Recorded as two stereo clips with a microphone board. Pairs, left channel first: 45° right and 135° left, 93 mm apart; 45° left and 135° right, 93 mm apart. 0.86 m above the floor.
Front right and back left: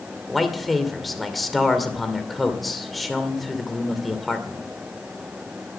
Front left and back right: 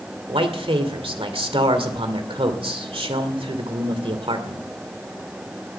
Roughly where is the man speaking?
Behind right.